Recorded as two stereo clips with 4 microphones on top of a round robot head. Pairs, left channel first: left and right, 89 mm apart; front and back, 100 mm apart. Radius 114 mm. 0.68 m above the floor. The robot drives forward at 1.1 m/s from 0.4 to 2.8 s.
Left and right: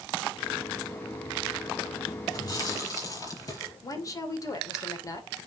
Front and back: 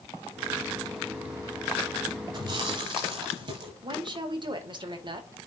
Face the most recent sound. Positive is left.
turn(degrees=140)